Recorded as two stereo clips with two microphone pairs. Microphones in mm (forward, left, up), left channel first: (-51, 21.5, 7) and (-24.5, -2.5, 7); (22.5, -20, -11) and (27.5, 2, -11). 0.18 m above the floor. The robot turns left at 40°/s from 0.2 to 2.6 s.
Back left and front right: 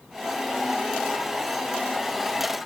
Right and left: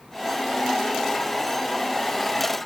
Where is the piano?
I don't hear a piano.